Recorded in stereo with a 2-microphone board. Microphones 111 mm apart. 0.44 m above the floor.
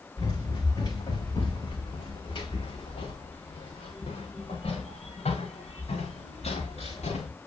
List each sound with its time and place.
0.2 s running footsteps: 40° left (ahead or behind), 6 m; by 7.3 s 80° left, 6 m